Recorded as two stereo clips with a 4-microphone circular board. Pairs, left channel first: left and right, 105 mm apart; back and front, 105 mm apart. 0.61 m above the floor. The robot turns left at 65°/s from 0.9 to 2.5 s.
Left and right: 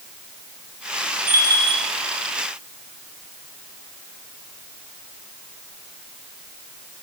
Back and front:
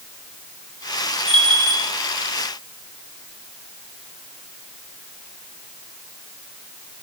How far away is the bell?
About 2.5 m.